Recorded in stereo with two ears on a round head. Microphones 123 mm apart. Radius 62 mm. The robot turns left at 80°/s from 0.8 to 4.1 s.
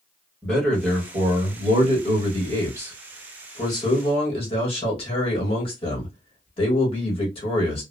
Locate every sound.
0.4 s a man speaking: 10° left, 1.3 m; by 7.8 s 105° left, 1.3 m